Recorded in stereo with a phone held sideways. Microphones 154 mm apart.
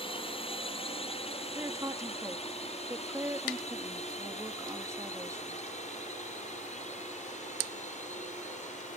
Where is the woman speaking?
20° right (ahead or behind).